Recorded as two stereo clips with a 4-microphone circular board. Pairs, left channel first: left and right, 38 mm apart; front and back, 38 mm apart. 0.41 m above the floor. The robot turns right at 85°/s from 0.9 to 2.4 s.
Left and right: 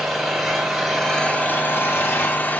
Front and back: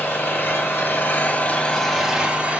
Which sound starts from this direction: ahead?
An engine running, at 0.0 s.